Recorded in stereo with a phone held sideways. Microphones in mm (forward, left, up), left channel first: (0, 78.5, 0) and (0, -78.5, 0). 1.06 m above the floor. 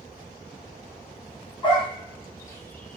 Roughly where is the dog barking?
Left.